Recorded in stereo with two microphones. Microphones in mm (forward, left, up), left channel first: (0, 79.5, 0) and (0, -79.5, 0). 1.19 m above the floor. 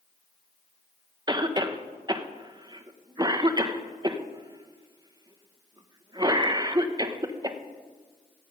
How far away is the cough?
About 0.9 m.